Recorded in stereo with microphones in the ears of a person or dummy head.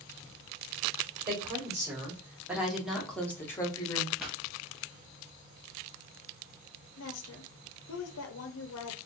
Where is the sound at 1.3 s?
20° right (ahead or behind), 1.8 m; by 4.1 s 30° left (ahead or behind), 1.0 m.